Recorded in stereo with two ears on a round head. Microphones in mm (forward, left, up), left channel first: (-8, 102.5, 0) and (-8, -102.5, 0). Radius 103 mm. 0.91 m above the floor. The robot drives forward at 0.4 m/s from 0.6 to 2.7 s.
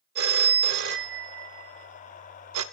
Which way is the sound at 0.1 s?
45° right (ahead or behind).